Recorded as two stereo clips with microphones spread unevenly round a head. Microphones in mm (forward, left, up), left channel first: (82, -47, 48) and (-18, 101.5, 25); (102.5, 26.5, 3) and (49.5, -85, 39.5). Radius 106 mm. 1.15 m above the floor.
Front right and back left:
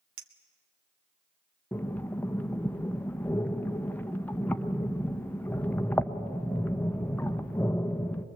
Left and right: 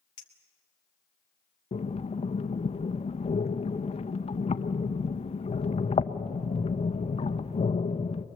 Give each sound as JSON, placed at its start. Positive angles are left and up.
{"t": 0.2, "sound": "a clink", "azimuth_deg": 115, "distance_m": 1.3}
{"t": 1.7, "sound": "breathing", "azimuth_deg": 25, "distance_m": 0.7}